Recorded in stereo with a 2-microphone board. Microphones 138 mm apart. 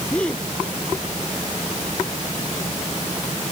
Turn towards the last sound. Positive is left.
turn(degrees=10)  # may be behind; listen again after turning